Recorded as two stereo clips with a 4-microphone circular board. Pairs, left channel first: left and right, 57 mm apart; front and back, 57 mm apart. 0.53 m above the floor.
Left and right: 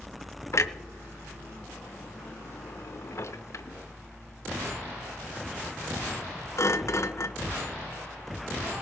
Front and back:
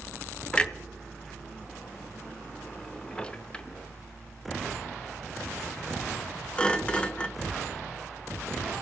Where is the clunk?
70° left, 0.6 m.